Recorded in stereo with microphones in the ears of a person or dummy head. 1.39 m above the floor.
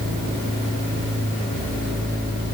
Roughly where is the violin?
No violin in this recording.